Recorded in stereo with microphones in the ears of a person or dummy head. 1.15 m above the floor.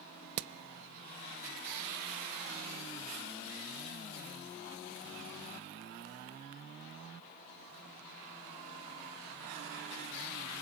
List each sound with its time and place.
0.4 s hammering: 80° right, 0.8 m